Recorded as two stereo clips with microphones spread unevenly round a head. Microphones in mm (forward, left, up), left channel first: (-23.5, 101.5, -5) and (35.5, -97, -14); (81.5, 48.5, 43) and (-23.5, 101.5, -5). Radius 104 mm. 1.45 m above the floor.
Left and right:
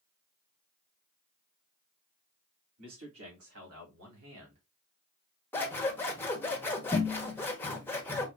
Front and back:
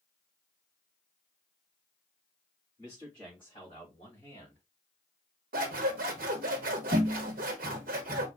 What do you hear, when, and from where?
2.8 s a man speaking: 100° right, 3.5 m; by 4.6 s 85° right, 2.5 m
5.5 s scissors: 175° right, 1.0 m